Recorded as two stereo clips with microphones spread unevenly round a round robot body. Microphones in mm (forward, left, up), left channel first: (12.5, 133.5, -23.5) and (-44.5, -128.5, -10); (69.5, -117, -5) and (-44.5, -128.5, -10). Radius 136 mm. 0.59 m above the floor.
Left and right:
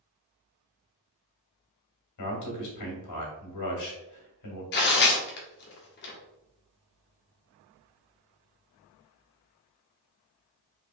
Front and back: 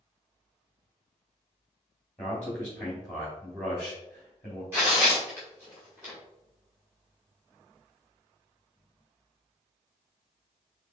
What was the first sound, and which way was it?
A man speaking, 95° left.